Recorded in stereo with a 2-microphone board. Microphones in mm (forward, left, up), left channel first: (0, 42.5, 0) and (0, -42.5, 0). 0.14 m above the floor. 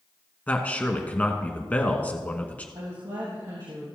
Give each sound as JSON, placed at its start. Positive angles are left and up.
{"t": 0.5, "sound": "a man speaking", "side_deg": 20, "distance_m": 1.1}
{"t": 2.8, "sound": "a woman speaking", "side_deg": -65, "distance_m": 3.0}